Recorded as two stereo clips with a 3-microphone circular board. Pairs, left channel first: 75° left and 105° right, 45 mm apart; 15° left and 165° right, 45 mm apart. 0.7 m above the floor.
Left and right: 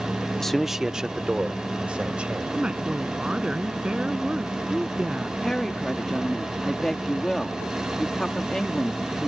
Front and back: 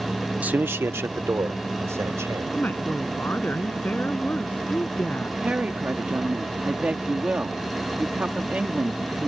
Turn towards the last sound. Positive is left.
turn(degrees=150)